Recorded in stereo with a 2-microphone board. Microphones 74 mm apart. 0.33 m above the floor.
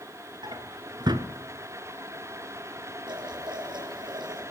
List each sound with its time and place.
0.4 s a drawer: 70° right (ahead or behind), 1.5 m
3.1 s boiling: 75° right (ahead or behind), 6 m